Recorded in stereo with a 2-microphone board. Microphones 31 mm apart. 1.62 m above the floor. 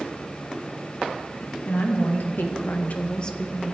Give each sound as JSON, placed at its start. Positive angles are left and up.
{"t": 1.6, "sound": "a woman speaking", "side_deg": 85, "distance_m": 2.5}